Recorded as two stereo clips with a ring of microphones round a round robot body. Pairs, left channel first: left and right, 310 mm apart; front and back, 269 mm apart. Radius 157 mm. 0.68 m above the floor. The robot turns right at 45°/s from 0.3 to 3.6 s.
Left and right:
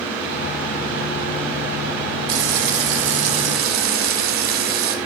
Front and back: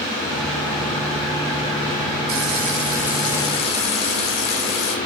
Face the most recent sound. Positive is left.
turn(degrees=-70)